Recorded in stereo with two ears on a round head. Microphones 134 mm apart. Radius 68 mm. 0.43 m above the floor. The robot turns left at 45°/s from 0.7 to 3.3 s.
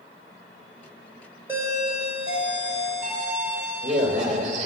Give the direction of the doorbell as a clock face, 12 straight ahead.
1 o'clock.